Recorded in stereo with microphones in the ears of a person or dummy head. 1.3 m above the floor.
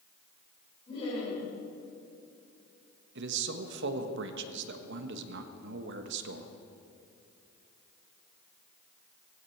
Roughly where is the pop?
No pop in this recording.